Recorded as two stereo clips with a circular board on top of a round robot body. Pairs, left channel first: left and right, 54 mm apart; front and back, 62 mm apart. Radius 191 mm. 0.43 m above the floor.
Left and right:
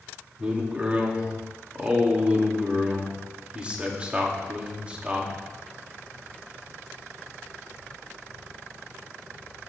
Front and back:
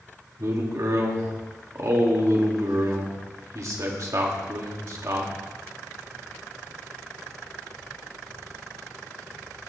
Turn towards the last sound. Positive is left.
turn(degrees=-155)